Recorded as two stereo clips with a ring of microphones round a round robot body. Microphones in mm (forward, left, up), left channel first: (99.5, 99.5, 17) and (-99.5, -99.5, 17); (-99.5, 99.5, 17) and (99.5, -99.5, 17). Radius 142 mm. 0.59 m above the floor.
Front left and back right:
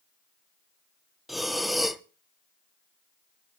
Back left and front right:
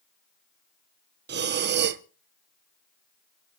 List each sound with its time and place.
1.3 s breathing: 45° right, 0.8 m